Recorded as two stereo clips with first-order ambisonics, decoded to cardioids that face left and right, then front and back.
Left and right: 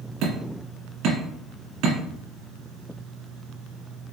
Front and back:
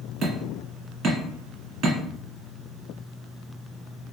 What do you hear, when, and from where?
0.2 s hammering: 125° right, 1.9 m